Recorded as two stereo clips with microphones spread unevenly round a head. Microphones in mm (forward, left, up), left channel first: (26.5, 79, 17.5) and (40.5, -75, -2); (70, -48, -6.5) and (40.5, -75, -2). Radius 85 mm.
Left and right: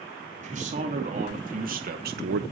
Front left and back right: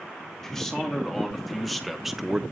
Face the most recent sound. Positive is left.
turn(degrees=-65)